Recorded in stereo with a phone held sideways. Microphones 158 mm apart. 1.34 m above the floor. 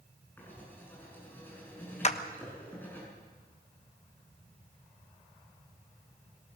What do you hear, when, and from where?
0.4 s writing: 10° left (ahead or behind), 7.5 m
2.0 s a clap: 45° left (ahead or behind), 1.1 m